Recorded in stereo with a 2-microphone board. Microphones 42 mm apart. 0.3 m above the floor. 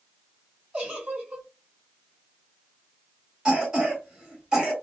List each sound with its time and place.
0.7 s a giggle: 25° right (ahead or behind), 1.3 m
3.5 s a cough: 20° right (ahead or behind), 1.8 m